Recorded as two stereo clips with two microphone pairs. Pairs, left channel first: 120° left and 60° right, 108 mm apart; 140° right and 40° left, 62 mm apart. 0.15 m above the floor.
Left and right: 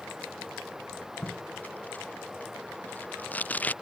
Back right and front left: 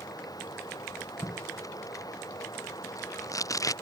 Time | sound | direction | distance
0.0 | running water | 145° right | ?
1.2 | tape being pulled | 165° right | ?